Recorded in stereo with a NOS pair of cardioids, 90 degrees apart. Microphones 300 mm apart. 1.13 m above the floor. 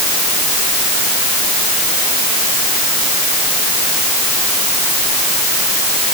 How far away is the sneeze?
I don't hear a sneeze.